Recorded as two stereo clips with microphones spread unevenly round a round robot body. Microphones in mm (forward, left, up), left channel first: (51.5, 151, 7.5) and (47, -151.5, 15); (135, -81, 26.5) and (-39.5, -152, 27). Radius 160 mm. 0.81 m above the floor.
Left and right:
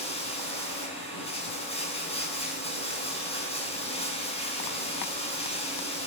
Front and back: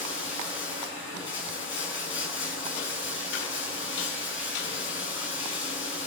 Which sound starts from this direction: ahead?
Running water, at 0.0 s.